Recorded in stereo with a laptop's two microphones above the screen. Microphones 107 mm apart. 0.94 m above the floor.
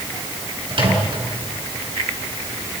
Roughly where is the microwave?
Right.